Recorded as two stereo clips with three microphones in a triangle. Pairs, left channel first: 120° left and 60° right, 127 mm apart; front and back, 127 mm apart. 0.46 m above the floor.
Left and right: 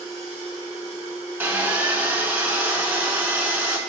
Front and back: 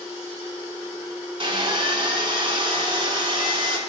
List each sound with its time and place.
1.4 s sawing: 135° right, 0.8 m